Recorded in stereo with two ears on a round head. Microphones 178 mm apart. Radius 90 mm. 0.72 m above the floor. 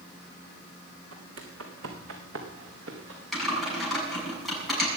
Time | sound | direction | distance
1.1 | footsteps | 75° right (ahead or behind) | 3 m
3.3 | typing on a keyboard | centre (ahead or behind) | 7 m